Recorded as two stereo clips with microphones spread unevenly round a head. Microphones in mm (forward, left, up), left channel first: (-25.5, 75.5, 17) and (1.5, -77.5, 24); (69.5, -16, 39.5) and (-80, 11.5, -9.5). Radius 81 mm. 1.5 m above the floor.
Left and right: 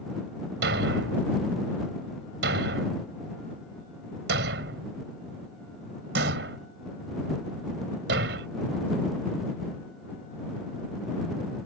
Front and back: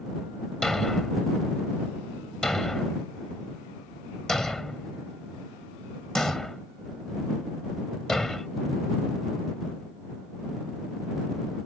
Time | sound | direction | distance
0.6 | a thud | 90° right | ?